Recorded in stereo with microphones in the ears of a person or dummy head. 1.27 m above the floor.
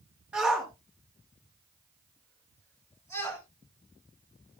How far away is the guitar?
I don't hear a guitar.